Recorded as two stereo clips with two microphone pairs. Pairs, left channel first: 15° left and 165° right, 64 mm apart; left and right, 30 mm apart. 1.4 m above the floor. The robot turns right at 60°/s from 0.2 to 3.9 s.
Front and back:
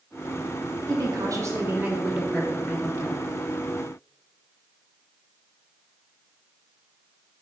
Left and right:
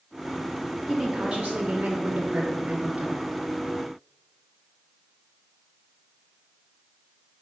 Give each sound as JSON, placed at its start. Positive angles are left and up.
{"t": 0.9, "sound": "a woman speaking", "azimuth_deg": -160, "distance_m": 1.6}